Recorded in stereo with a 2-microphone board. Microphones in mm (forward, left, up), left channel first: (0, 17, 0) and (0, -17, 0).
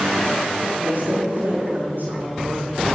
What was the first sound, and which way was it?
A woman speaking, 80° right.